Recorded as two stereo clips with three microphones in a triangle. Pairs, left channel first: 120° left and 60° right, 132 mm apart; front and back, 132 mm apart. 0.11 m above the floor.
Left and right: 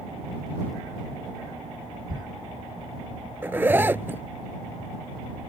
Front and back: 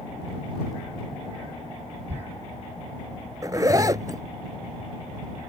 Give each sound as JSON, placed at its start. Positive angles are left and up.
{"t": 2.1, "sound": "a thud", "azimuth_deg": -105}
{"t": 3.4, "sound": "a zipper", "azimuth_deg": -125}